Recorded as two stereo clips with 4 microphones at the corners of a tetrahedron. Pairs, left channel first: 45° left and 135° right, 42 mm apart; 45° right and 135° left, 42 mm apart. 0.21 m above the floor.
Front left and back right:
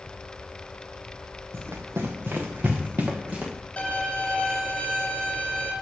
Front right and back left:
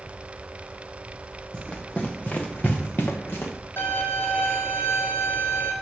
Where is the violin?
25° right, 3.5 m.